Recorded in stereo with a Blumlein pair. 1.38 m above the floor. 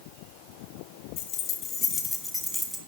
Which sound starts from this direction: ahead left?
Keys jangling, at 1.2 s.